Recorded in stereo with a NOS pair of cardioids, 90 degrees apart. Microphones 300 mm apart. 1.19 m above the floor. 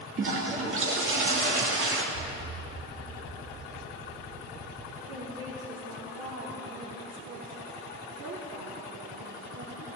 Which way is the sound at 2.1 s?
50° right.